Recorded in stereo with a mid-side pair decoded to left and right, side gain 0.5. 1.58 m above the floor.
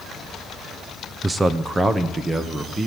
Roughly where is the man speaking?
Ahead.